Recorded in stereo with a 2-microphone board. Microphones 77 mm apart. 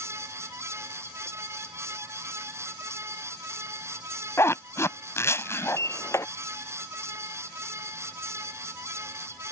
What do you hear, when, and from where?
4.4 s a zipper: 35° left (ahead or behind)
5.7 s a sliding door: 40° left (ahead or behind)